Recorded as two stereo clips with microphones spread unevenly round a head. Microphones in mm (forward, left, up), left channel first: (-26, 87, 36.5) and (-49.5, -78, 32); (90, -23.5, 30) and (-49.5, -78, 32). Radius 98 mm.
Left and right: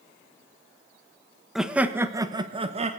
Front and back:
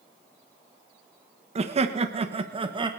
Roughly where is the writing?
I don't hear writing.